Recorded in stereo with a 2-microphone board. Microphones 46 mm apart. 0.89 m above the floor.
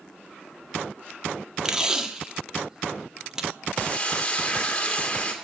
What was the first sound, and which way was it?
Tape being pulled, 15° right (ahead or behind).